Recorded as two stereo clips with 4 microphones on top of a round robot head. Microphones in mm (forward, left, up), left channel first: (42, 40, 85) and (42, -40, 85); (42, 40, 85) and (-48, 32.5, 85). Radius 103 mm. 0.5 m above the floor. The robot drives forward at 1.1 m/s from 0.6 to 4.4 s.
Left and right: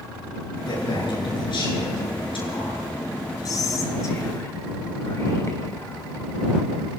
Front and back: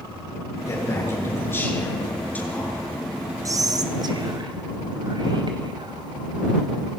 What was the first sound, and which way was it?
A man speaking, 65° left.